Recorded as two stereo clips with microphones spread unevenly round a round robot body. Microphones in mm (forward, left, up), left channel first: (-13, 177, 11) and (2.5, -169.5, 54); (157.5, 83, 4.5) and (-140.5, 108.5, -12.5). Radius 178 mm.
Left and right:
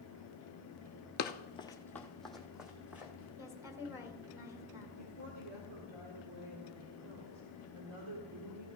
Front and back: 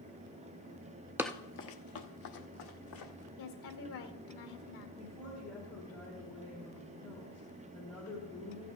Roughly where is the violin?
No violin in this recording.